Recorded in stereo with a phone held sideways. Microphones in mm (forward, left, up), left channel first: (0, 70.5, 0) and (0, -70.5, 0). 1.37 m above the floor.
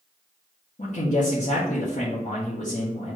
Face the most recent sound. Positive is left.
turn(degrees=60)  # may be behind; listen again after turning